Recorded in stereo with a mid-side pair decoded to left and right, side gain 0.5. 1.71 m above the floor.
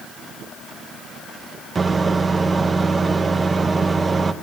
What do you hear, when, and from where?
1.8 s a microwave: 30° right, 0.8 m